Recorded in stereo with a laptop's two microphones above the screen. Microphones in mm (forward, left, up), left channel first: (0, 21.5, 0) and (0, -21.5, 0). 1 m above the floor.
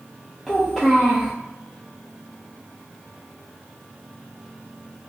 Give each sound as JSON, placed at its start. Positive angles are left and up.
{"t": 0.5, "sound": "a child speaking", "side_deg": 10, "distance_m": 0.6}